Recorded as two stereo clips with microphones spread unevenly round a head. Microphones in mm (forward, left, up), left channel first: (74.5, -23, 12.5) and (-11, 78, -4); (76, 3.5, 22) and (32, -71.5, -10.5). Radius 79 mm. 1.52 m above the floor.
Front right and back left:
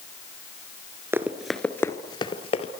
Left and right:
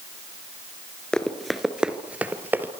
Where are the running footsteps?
60° left, 1.6 m; by 2.7 s 40° right, 2.5 m.